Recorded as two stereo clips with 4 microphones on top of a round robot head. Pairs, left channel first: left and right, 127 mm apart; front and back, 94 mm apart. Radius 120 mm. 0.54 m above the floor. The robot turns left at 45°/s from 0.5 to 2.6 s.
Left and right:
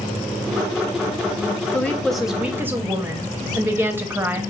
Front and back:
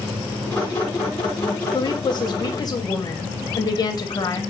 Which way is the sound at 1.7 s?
20° left.